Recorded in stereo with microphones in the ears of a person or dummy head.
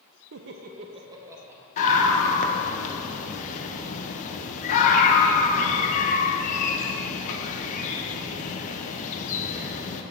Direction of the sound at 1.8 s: 40° left (ahead or behind).